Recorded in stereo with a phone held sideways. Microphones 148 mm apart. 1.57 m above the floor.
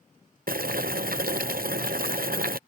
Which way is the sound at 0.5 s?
80° right.